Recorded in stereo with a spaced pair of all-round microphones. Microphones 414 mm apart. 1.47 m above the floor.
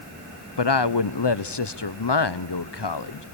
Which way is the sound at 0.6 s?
65° left (ahead or behind).